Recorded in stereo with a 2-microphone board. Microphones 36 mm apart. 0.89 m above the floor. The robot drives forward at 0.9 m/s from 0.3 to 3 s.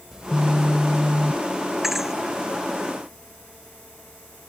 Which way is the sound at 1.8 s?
10° right (ahead or behind).